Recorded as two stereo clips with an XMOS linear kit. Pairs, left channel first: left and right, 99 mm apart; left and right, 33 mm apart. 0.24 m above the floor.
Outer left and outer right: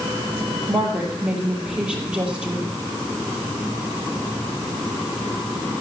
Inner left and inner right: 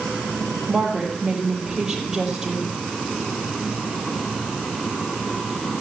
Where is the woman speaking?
10° right (ahead or behind), 5 m.